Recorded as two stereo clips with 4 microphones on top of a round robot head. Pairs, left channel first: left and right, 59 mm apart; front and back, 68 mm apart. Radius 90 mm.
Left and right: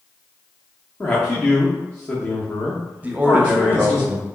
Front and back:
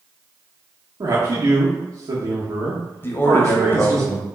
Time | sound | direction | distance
1.0 | a man speaking | 155° left | 1.1 m
3.0 | a man speaking | 35° right | 0.9 m